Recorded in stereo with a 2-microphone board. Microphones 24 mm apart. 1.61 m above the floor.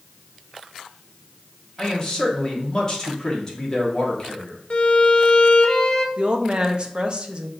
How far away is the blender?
No blender in this recording.